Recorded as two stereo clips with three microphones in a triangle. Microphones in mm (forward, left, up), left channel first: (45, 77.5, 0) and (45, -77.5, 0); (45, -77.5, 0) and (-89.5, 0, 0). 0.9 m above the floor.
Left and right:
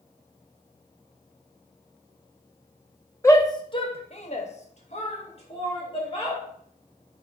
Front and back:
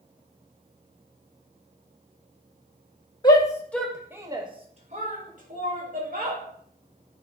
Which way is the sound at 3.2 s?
20° left.